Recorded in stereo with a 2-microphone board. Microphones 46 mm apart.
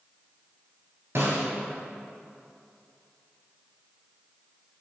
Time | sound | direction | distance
1.1 | a snare drum | 65° right (ahead or behind) | 2.5 m